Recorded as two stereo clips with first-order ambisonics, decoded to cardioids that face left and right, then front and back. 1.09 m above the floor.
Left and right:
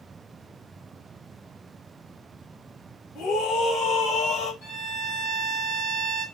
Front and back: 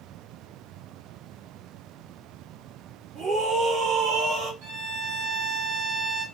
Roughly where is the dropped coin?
No dropped coin in this recording.